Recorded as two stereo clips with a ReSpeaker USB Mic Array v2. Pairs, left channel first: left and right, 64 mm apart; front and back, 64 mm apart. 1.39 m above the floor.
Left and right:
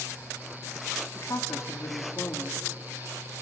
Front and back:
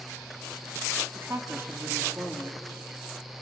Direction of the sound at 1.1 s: 130° left.